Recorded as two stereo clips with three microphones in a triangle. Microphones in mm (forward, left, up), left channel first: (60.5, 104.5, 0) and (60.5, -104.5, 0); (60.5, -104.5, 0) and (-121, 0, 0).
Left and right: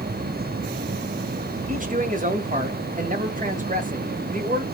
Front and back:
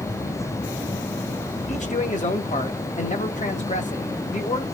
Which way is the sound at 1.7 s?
65° right.